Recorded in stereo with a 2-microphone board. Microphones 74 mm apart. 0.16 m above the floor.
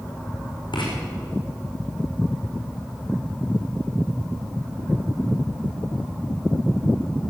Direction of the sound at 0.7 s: 85° left.